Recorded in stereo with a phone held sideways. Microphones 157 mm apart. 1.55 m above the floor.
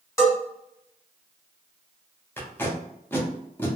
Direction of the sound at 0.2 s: 20° left (ahead or behind).